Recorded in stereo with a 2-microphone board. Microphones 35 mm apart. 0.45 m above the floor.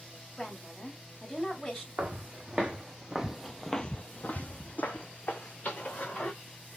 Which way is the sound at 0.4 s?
20° left (ahead or behind).